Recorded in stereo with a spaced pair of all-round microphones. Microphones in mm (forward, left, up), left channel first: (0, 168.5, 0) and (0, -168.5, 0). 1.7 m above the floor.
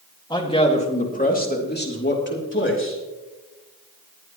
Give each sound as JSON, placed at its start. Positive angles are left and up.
{"t": 0.3, "sound": "a man speaking", "side_deg": 15, "distance_m": 2.0}